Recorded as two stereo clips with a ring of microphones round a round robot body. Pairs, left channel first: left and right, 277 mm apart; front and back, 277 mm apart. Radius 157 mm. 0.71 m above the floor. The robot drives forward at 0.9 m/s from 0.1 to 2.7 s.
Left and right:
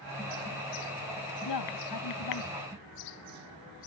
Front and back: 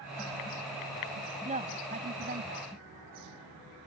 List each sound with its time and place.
1.4 s a woman speaking: 115° left; by 2.7 s 125° left